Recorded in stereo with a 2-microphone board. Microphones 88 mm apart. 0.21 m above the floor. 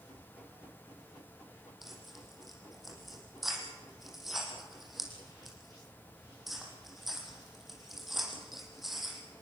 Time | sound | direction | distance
1.8 | tearing paper | centre (ahead or behind) | 6.5 m